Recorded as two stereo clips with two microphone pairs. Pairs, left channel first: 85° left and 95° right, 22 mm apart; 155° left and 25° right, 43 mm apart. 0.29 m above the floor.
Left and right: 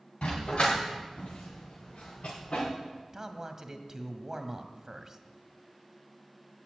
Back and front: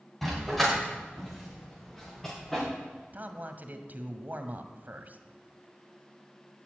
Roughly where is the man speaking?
Ahead right.